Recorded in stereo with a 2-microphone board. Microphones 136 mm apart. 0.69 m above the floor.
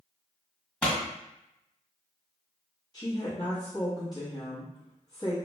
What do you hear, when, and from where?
0.8 s a pop: 5° left (ahead or behind), 1.6 m
2.9 s a woman speaking: 30° left (ahead or behind), 1.1 m